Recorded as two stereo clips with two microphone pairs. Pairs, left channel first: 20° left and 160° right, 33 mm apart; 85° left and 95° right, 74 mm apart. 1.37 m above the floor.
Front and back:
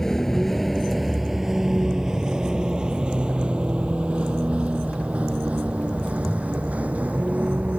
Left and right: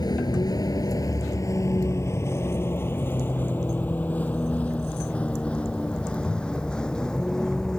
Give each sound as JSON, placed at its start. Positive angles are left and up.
{"t": 0.0, "sound": "a vehicle", "azimuth_deg": 95}